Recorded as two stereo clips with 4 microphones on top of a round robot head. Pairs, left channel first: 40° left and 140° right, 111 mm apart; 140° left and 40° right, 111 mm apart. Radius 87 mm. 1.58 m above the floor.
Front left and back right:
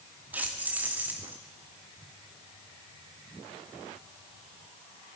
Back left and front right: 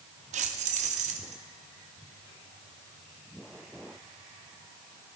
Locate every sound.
0.3 s keys jangling: 65° right, 2 m